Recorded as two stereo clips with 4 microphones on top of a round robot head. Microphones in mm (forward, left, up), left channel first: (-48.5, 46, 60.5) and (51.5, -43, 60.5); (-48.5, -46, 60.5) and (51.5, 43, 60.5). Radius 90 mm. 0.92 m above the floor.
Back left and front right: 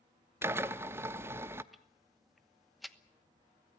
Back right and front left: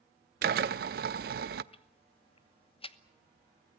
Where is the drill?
30° left, 0.6 m.